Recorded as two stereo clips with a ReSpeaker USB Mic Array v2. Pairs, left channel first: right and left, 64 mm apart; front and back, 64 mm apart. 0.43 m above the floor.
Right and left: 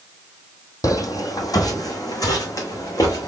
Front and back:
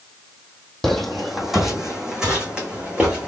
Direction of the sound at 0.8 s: 85° right.